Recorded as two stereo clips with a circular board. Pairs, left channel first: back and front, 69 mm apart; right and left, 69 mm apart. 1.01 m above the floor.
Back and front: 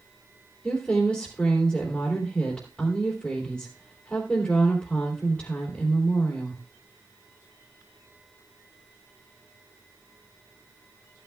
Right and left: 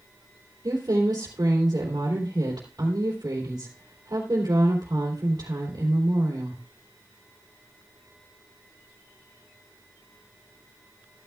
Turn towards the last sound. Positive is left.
turn(degrees=110)